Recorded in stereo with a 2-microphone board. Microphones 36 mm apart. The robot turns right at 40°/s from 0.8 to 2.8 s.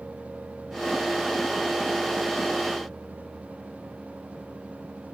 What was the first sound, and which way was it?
Only background noise.